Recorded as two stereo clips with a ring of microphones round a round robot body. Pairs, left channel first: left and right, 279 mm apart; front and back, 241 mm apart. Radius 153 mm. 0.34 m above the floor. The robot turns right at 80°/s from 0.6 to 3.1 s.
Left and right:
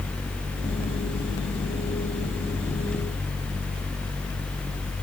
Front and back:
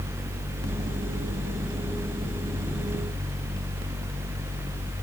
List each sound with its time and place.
Only background noise.